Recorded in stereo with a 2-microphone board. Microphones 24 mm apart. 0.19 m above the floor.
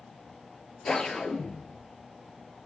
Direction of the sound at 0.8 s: 35° left (ahead or behind).